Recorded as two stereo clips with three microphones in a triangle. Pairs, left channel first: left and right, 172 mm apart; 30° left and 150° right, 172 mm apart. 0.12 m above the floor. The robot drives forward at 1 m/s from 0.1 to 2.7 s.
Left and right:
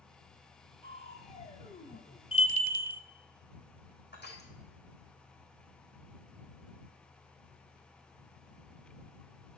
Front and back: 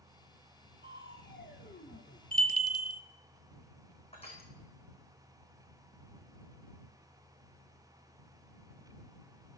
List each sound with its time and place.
0.8 s crushing: 30° left, 2.5 m; by 2.2 s 60° left, 1.5 m
2.3 s a bell: 40° left, 0.7 m; by 3.0 s 80° left, 0.5 m
4.1 s crushing: 85° left, 3.5 m